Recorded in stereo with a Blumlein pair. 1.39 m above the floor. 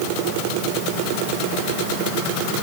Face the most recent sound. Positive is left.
No sound to turn to.